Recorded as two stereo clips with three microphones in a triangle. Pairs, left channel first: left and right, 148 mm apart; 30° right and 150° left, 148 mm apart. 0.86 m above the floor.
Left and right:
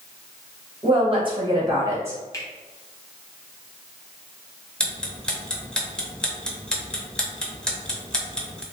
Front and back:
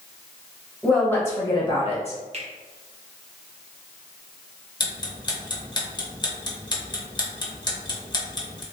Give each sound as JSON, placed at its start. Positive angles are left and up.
{"t": 0.8, "sound": "a woman speaking", "azimuth_deg": -120, "distance_m": 1.2}
{"t": 2.3, "sound": "a finger snap", "azimuth_deg": 150, "distance_m": 0.9}
{"t": 4.8, "sound": "ticking", "azimuth_deg": 10, "distance_m": 0.7}